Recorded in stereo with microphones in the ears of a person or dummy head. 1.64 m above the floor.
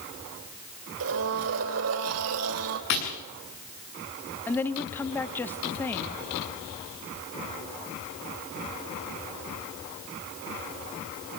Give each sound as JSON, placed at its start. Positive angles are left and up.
{"t": 1.0, "sound": "a blender", "side_deg": -70, "distance_m": 3.0}
{"t": 2.9, "sound": "tapping", "side_deg": 60, "distance_m": 7.5}
{"t": 4.5, "sound": "a woman speaking", "side_deg": 5, "distance_m": 1.1}